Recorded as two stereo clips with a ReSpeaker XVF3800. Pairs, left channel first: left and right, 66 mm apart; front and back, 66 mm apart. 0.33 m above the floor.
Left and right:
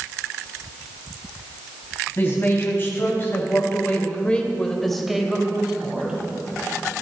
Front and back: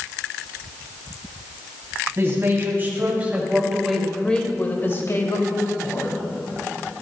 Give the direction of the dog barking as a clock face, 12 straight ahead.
No dog barking in this recording.